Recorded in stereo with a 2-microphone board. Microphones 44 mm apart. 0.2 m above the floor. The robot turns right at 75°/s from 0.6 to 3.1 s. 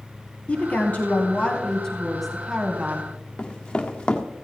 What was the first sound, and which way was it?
A woman speaking, 60° left.